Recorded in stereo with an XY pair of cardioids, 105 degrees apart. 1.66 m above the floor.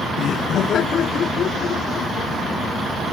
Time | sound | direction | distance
0.2 | laughter | 65° left | ?